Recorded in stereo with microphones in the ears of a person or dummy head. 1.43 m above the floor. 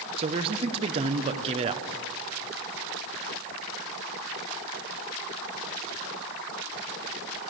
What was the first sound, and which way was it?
A man speaking, 35° right (ahead or behind).